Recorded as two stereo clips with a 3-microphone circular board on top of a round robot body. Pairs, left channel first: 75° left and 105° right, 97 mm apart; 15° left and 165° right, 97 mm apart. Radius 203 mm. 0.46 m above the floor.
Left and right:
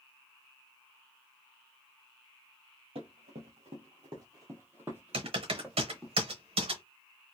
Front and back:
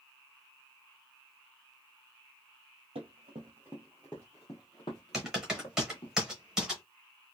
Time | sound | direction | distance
3.0 | running footsteps | 135° right | 0.7 m
5.1 | typing on a keyboard | 80° right | 0.9 m